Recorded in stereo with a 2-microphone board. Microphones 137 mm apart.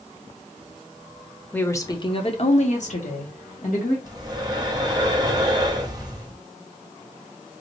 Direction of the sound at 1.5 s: 10° left (ahead or behind).